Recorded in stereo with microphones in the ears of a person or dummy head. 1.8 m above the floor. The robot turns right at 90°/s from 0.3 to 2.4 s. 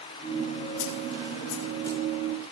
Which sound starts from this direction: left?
A snare drum, at 0.8 s.